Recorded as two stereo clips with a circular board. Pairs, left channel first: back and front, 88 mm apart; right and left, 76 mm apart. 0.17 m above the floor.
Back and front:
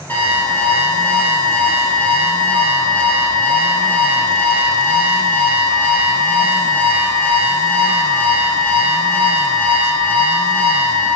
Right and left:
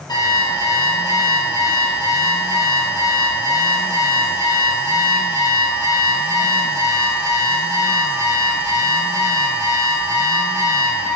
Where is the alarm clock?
115° right, 2.5 m.